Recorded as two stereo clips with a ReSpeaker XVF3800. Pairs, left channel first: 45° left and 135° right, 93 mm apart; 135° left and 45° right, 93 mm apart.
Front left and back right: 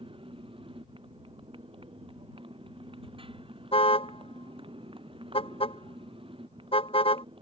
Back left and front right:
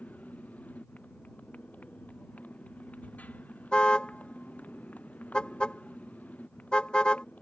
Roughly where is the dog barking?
No dog barking in this recording.